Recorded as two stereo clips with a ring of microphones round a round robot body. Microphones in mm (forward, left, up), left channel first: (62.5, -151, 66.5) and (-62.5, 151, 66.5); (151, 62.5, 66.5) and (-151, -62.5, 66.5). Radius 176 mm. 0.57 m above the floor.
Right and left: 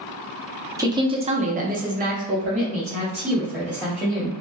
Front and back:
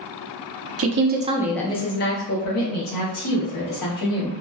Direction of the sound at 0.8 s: 170° right.